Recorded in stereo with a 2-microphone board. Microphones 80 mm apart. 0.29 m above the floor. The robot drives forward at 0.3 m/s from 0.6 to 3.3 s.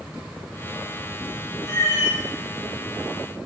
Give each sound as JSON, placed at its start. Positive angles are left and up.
{"t": 1.6, "sound": "a cat meowing", "side_deg": 40, "distance_m": 1.9}